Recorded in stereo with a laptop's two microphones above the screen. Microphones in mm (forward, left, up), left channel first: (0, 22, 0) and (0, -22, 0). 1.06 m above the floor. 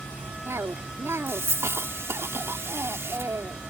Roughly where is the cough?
Right.